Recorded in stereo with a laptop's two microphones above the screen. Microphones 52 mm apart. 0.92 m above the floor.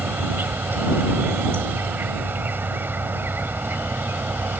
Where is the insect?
45° right (ahead or behind).